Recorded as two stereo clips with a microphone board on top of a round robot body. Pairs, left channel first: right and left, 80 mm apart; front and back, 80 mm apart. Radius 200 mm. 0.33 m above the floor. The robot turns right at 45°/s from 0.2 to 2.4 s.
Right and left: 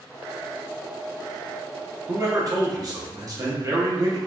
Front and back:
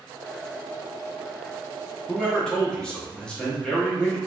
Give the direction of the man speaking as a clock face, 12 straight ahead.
10 o'clock.